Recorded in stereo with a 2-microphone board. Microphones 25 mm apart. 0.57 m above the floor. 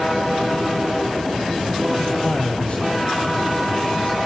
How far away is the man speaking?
About 3.5 m.